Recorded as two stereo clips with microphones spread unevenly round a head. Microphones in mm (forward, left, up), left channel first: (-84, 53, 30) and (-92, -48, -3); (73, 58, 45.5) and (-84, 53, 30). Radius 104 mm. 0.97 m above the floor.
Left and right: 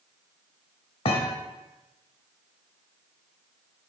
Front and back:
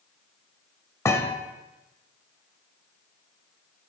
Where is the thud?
70° left, 1.4 m.